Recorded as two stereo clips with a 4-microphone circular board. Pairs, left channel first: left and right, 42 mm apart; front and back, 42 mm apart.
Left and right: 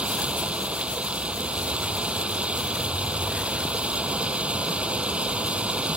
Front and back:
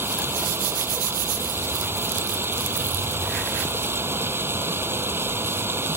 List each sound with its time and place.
0.0 s running water: 150° right